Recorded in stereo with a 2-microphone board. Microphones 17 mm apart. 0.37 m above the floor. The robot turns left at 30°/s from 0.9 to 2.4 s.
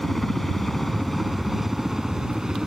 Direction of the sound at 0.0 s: 10° left (ahead or behind).